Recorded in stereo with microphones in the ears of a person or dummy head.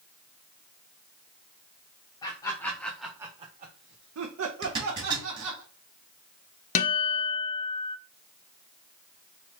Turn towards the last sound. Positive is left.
turn(degrees=40)  # may be behind; listen again after turning